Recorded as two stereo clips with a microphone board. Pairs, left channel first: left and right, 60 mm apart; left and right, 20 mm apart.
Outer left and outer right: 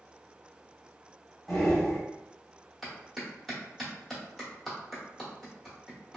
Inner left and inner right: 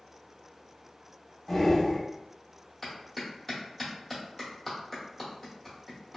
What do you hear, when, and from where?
1.5 s breathing: centre (ahead or behind), 1.1 m
2.8 s a clap: centre (ahead or behind), 1.0 m